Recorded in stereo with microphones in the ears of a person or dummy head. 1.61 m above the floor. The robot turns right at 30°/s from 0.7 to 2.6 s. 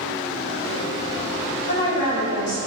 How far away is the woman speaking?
About 1.7 m.